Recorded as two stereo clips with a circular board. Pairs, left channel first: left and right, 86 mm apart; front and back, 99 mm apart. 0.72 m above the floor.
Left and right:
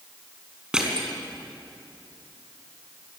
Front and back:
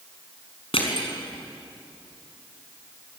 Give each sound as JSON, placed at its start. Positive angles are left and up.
{"t": 0.7, "sound": "crushing", "azimuth_deg": -10, "distance_m": 4.5}